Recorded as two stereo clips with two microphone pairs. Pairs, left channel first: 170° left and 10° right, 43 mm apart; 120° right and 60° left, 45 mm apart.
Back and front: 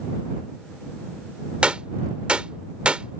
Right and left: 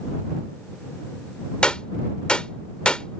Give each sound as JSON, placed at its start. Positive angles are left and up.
{"t": 1.6, "sound": "a gunshot", "azimuth_deg": -65}